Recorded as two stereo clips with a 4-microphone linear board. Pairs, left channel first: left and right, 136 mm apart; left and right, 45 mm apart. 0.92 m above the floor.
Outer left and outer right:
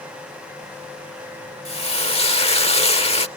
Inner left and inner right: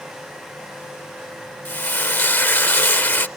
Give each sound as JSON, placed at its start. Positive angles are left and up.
{"t": 1.6, "sound": "frying", "side_deg": 50}